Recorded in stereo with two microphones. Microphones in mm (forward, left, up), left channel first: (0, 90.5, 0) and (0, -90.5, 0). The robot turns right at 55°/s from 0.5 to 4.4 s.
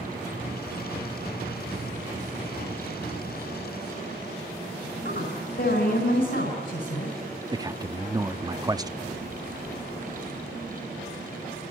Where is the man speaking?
20° right (ahead or behind), 0.6 m.